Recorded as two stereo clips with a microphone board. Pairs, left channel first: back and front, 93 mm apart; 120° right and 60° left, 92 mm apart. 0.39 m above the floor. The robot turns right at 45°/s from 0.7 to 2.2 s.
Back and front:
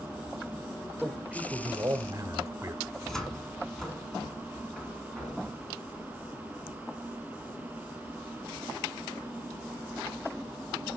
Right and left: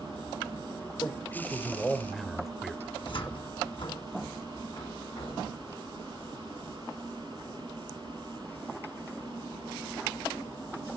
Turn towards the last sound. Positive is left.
turn(degrees=-95)